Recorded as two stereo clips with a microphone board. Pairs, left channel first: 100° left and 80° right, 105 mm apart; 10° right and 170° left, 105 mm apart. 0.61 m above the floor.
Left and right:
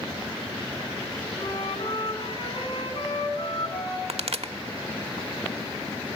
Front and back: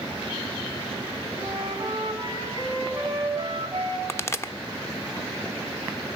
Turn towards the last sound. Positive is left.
turn(degrees=-75)